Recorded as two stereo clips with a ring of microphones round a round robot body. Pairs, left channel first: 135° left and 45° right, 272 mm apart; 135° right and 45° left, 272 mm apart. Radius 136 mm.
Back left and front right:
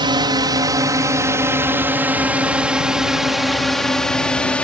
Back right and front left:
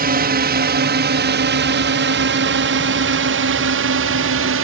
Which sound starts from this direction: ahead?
A drone, at 0.0 s.